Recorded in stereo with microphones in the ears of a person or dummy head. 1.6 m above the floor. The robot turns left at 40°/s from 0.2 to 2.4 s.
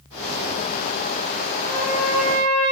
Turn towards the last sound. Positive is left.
turn(degrees=-130)